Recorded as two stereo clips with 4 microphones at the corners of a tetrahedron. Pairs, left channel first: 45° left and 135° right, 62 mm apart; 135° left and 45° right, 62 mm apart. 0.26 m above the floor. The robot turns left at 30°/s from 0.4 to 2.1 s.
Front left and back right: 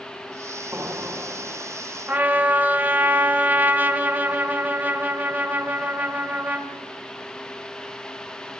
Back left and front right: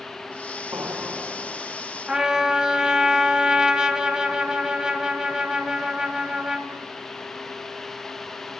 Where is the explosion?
85° right, 3.5 m; by 2.0 s 120° right, 3.5 m.